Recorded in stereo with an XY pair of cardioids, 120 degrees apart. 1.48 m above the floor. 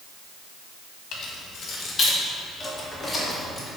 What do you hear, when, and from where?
1.1 s keys jangling: 65° left, 1.8 m; by 3.7 s 10° left, 3 m